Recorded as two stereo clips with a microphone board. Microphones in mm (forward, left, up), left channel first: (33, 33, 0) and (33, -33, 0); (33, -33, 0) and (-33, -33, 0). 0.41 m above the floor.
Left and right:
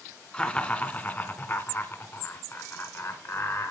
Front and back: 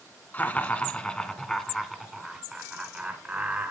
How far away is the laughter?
About 1.6 m.